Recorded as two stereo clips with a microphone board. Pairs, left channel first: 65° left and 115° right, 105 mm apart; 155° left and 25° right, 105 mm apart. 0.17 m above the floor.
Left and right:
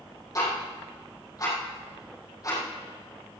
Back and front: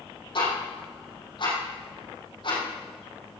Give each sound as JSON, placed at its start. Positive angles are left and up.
{"t": 0.3, "sound": "ticking", "azimuth_deg": 120, "distance_m": 5.0}